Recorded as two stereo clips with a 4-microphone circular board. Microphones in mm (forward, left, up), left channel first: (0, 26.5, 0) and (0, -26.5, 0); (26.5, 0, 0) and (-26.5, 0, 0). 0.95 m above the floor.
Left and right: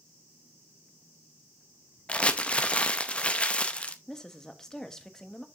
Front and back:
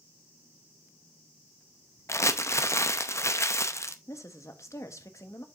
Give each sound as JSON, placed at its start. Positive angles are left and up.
{"t": 2.1, "sound": "crumpling", "azimuth_deg": 25, "distance_m": 0.7}
{"t": 4.1, "sound": "a woman speaking", "azimuth_deg": 10, "distance_m": 1.1}